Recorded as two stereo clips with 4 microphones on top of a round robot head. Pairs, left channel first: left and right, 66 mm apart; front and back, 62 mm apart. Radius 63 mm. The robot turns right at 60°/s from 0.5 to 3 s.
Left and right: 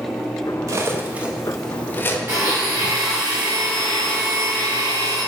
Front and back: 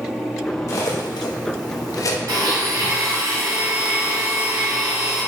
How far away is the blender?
About 1.9 m.